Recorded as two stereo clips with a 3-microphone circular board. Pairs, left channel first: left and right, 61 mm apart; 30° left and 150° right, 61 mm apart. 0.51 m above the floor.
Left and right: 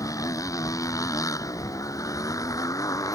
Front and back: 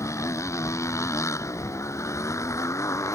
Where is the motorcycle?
65° left.